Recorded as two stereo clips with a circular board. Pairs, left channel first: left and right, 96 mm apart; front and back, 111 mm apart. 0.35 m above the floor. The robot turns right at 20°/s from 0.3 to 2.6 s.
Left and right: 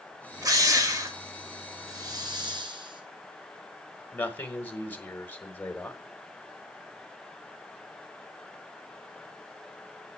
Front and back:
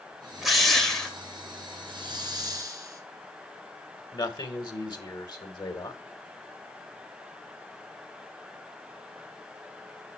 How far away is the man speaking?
About 1.4 m.